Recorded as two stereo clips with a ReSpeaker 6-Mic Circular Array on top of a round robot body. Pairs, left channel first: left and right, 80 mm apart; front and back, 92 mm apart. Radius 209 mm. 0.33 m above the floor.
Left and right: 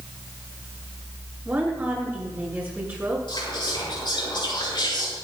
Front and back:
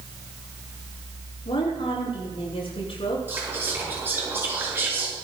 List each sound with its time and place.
1.4 s a woman speaking: 25° right, 8 m
3.3 s whispering: 115° left, 7 m